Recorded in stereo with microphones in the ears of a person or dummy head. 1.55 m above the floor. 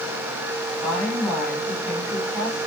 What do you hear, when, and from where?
0.8 s a woman speaking: 5° right (ahead or behind), 6 m